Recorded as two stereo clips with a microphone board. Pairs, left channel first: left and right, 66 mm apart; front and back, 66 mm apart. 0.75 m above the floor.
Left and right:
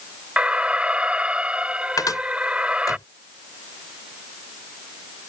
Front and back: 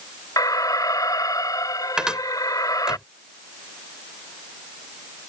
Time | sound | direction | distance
0.4 | an alarm | 20° right | ?
2.0 | a cupboard door | 100° left | ?